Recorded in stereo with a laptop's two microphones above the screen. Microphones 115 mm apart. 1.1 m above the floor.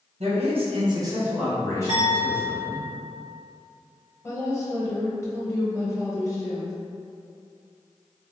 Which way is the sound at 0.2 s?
65° right (ahead or behind).